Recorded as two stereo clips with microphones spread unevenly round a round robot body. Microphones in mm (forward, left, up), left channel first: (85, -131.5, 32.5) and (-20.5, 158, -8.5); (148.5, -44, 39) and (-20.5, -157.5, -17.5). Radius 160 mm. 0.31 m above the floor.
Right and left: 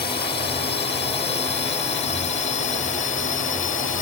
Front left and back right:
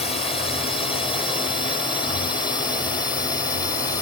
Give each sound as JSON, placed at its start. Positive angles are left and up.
{"t": 0.0, "sound": "a drone", "azimuth_deg": -30}